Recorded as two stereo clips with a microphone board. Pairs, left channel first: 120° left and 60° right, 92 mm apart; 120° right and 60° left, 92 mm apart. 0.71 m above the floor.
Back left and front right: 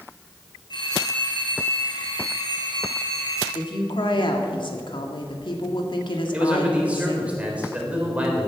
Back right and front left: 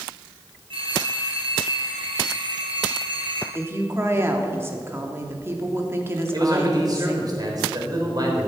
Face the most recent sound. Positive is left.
turn(degrees=15)